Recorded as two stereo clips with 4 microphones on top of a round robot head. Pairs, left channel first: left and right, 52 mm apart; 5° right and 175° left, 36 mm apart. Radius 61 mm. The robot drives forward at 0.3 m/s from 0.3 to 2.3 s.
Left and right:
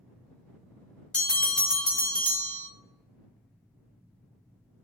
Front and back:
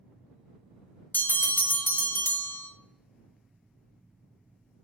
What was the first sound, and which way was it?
A bell, 15° left.